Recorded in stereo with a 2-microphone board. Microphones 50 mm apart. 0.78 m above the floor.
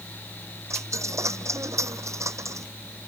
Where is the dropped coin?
70° right (ahead or behind).